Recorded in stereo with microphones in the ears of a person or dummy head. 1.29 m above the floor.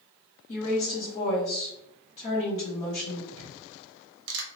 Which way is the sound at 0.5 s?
40° left (ahead or behind).